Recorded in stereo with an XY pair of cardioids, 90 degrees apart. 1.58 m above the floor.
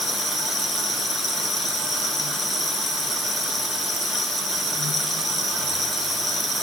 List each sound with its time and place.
Only background noise.